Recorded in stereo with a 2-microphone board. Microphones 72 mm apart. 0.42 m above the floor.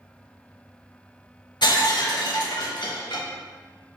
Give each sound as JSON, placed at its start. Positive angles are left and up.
{"t": 1.6, "sound": "breaking glass", "side_deg": 85, "distance_m": 0.6}